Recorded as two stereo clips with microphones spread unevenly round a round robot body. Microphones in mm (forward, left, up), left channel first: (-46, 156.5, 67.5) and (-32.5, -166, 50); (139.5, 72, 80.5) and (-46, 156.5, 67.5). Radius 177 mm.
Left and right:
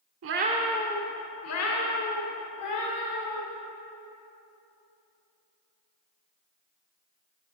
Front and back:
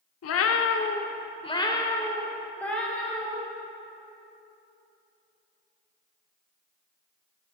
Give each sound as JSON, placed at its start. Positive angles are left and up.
{"t": 0.2, "sound": "a cat meowing", "azimuth_deg": -35, "distance_m": 0.6}